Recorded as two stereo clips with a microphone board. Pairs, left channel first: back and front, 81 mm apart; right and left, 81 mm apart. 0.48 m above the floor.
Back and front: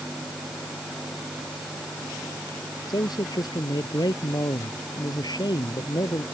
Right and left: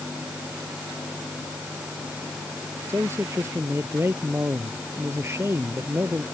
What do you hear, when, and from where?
2.9 s a man speaking: 150° left